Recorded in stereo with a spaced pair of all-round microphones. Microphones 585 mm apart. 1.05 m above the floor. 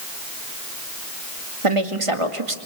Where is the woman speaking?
60° right (ahead or behind), 2 m.